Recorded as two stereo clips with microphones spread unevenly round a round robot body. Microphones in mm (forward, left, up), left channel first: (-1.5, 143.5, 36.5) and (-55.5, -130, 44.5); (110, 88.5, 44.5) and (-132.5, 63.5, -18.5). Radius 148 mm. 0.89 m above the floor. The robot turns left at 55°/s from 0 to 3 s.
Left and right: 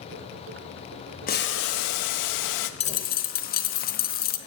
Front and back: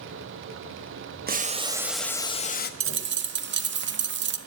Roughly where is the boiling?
Behind left.